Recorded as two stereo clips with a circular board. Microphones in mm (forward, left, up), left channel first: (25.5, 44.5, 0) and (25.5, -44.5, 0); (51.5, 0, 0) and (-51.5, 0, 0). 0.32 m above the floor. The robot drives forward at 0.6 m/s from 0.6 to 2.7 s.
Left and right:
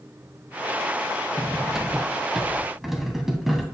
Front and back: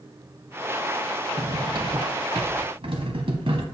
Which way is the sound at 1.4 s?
165° right.